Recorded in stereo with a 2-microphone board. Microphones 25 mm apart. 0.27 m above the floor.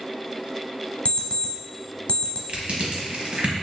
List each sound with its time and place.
1.1 s an alarm clock: 50° left (ahead or behind), 1.0 m
2.5 s crushing: 50° right (ahead or behind), 1.1 m